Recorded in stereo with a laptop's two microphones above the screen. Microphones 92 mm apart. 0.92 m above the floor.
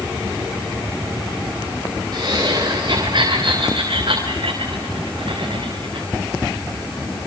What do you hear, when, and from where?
2.1 s laughter: 45° right (ahead or behind), 4 m; by 6.1 s 75° right (ahead or behind), 3.5 m